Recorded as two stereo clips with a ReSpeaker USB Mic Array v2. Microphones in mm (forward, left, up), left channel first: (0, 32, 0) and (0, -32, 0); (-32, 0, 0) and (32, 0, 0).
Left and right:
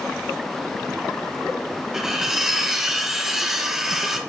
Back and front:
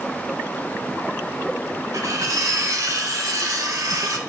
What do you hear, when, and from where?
1.9 s cutlery clinking: 5° right, 1.1 m